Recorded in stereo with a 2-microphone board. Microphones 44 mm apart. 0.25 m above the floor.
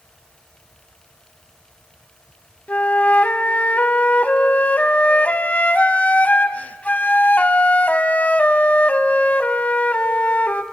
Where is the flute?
35° left (ahead or behind), 0.6 m.